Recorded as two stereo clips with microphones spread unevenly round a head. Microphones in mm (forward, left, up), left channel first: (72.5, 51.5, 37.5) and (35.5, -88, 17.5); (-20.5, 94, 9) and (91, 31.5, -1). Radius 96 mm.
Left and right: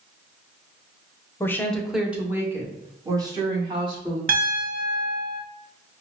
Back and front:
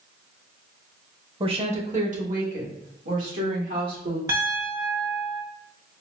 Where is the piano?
100° right, 1.1 m.